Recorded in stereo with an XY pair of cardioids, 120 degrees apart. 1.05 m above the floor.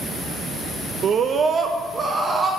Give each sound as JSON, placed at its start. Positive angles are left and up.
{"t": 1.0, "sound": "a scream", "azimuth_deg": -55, "distance_m": 0.5}